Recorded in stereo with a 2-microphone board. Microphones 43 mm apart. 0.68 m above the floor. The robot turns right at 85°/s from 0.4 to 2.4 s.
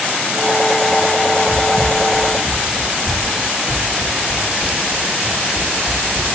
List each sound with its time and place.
1.5 s footsteps: 25° left (ahead or behind), 2.5 m; by 6.3 s 30° right (ahead or behind), 5.5 m